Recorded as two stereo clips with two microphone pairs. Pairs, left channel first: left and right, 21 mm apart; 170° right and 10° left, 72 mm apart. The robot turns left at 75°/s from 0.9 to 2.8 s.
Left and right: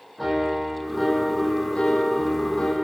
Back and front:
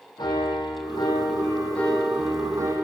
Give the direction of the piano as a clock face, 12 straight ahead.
6 o'clock.